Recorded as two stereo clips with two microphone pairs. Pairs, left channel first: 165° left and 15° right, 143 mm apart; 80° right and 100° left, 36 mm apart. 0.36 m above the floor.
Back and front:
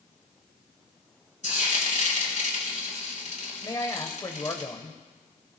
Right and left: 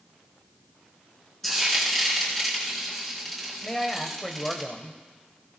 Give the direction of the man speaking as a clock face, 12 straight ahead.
5 o'clock.